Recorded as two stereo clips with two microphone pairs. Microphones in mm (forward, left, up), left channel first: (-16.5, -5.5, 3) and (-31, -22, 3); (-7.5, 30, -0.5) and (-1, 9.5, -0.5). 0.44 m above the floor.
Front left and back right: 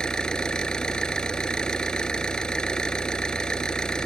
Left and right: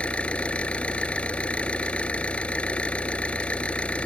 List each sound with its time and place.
0.0 s an engine running: 100° left